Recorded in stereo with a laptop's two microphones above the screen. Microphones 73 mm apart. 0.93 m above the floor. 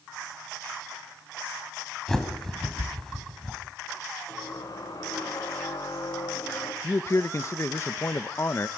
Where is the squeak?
60° left (ahead or behind), 4 m.